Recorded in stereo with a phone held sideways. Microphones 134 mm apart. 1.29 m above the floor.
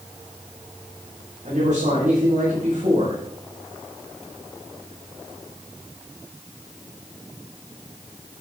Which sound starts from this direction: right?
A man speaking, at 1.4 s.